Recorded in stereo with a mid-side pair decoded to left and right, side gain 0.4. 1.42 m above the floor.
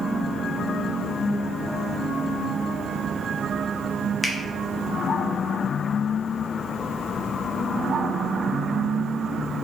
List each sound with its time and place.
4.2 s a finger snap: 20° left, 0.9 m